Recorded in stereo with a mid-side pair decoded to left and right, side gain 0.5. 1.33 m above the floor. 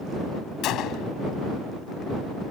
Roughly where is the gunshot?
Left.